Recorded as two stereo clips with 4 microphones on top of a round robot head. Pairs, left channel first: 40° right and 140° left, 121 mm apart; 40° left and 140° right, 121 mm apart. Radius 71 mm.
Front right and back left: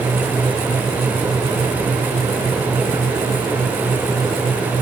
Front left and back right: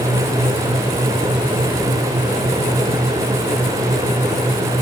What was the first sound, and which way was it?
Only background noise.